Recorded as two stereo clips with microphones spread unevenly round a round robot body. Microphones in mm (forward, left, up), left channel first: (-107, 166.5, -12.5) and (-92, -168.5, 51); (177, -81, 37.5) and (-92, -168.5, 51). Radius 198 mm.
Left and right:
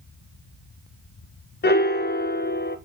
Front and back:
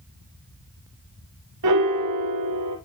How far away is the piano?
About 1.0 m.